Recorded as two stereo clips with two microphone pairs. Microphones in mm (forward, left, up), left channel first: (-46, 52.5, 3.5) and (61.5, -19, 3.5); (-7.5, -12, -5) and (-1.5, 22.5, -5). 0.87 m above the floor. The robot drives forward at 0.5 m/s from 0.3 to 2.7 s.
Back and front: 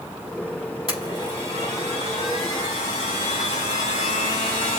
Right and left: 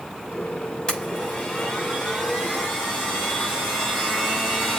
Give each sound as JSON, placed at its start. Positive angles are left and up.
{"t": 0.9, "sound": "a blender", "azimuth_deg": -170, "distance_m": 5.5}